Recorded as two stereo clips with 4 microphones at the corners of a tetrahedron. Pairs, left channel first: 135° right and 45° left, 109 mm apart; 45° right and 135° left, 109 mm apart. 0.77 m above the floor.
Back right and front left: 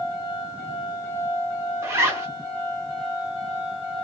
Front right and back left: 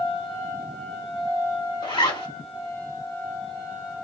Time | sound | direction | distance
1.8 | a zipper | 15° right | 1.8 m